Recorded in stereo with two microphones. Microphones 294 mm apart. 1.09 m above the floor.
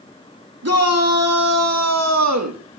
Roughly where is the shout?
Right.